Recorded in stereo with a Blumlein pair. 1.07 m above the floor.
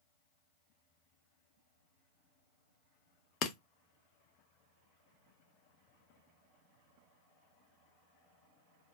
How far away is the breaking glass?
About 0.5 m.